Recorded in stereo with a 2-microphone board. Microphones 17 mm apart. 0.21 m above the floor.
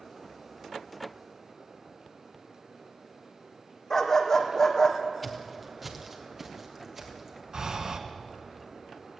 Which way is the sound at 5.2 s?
5° left (ahead or behind).